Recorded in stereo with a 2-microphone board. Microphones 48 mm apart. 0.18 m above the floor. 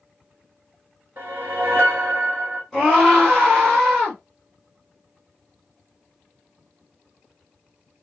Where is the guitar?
No guitar in this recording.